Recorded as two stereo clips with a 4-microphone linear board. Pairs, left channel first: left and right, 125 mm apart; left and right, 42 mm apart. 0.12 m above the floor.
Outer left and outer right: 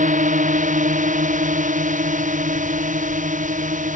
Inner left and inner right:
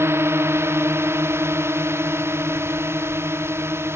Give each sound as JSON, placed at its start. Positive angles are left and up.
{"t": 0.0, "sound": "a drone", "side_deg": -80}